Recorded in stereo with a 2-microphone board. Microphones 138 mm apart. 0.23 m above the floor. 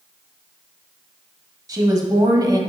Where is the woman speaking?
30° right (ahead or behind), 1.1 m.